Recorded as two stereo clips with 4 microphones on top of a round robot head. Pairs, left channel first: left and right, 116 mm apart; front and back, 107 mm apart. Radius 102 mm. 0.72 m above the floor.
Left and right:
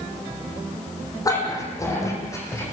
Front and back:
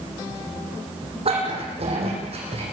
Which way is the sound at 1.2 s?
150° left.